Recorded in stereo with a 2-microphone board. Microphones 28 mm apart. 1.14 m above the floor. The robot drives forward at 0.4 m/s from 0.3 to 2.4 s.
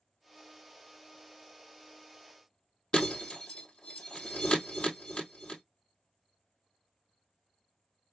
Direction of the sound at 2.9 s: 35° left (ahead or behind).